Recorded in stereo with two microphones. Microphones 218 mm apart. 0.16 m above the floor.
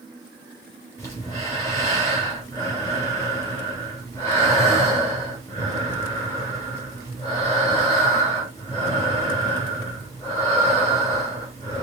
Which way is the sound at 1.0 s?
15° left (ahead or behind).